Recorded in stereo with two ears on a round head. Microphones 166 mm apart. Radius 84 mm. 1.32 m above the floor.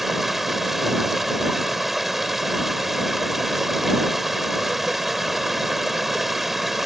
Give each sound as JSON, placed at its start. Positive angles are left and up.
{"t": 0.0, "sound": "running water", "side_deg": 0}